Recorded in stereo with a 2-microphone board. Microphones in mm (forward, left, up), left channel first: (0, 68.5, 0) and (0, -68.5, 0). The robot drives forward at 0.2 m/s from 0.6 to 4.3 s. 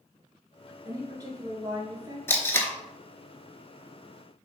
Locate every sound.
0.8 s a woman speaking: 30° right (ahead or behind), 1.2 m; by 2.2 s 25° right (ahead or behind), 1.3 m
2.3 s tape being pulled: 20° left (ahead or behind), 0.7 m